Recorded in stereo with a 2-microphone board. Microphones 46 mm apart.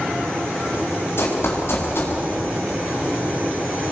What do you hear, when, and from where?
1.2 s running footsteps: 60° left (ahead or behind), 5.5 m